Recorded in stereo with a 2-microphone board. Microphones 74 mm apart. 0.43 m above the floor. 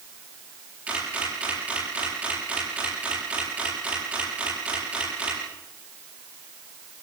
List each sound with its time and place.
0.9 s a camera shutter: 20° right (ahead or behind), 8.5 m